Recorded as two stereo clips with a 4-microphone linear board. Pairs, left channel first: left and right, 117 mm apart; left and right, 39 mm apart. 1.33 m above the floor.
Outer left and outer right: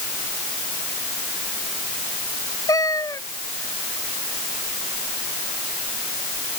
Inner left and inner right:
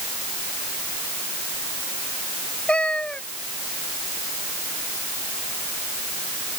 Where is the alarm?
I don't hear an alarm.